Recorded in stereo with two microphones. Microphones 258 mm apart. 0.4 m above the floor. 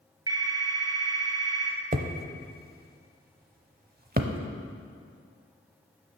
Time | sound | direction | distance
0.3 | a phone ringing | 15° right (ahead or behind) | 1.4 m
1.9 | hammering | 40° right (ahead or behind) | 0.6 m